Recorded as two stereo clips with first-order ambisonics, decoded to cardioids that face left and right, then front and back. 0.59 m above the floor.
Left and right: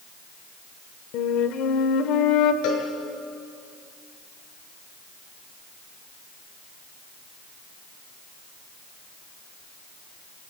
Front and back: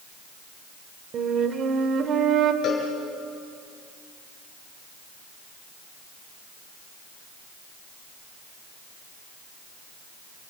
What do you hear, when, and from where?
1.1 s a flute: 125° left, 1.5 m
2.6 s a cowbell: 60° left, 5.5 m